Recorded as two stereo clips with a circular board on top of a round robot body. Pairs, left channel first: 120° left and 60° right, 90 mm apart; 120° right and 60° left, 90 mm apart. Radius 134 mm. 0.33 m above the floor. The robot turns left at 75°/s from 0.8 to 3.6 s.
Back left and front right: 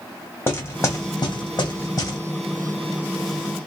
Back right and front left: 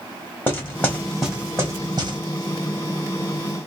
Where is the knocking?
Straight behind, 1.9 m; by 2.2 s 75° left, 1.9 m.